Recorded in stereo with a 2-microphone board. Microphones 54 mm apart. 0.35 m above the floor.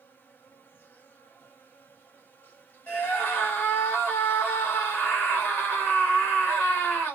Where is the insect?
35° left (ahead or behind), 1.0 m.